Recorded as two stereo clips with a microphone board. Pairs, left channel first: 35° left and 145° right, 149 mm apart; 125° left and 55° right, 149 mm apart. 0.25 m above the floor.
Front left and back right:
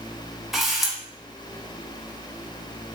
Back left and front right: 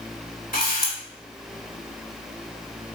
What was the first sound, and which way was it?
A camera shutter, 125° left.